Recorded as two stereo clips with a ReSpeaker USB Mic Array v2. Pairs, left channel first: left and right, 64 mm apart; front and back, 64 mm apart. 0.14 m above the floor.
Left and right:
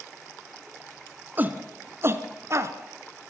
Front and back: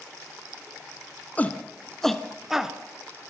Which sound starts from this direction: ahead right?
A shout, at 1.4 s.